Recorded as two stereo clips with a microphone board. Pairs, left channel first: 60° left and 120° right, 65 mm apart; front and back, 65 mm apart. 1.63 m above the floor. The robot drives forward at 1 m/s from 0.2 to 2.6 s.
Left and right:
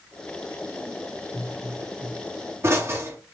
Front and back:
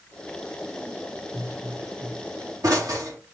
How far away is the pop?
About 1.2 m.